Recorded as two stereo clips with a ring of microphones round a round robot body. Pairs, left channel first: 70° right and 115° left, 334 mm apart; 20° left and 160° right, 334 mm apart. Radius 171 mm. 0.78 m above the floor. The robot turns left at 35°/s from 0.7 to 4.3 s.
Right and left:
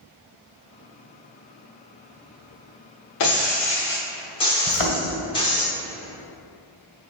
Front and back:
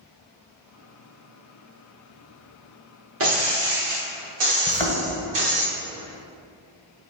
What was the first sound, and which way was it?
Breaking glass, 105° right.